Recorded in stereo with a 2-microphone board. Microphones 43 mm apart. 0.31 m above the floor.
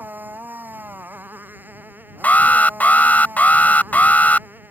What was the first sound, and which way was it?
A motorcycle, 50° right (ahead or behind).